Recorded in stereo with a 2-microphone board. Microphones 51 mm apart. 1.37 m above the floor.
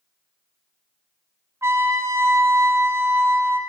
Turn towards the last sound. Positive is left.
turn(degrees=-60)  # may be behind; listen again after turning